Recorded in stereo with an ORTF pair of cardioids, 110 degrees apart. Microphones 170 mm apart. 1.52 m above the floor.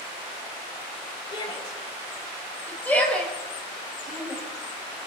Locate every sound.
1.3 s a shout: 25° left, 6 m; by 4.4 s 5° right, 6.5 m